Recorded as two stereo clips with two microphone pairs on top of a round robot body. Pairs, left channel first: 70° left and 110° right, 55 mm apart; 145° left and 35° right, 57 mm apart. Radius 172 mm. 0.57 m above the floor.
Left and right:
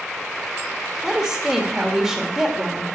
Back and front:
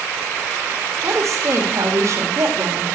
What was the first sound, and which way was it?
A woman speaking, 15° right.